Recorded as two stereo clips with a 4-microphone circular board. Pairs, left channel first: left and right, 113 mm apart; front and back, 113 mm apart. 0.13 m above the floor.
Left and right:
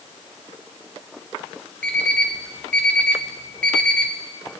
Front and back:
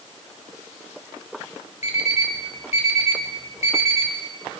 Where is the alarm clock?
10° left, 1.7 m.